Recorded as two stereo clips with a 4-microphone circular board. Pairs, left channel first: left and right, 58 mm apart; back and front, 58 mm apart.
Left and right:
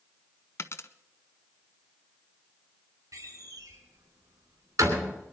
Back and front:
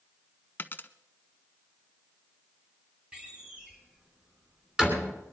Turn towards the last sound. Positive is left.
turn(degrees=-75)